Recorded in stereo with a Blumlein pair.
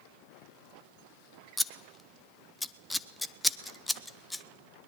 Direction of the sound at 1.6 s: 5° left.